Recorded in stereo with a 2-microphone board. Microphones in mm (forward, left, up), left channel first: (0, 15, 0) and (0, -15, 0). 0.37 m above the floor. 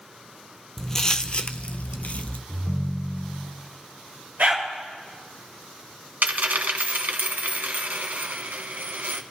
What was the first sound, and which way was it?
Footsteps, 15° left (ahead or behind).